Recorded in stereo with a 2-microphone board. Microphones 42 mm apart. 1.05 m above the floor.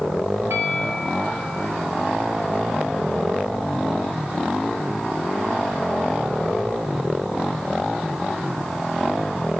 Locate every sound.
0.5 s a bell: 85° right, 8 m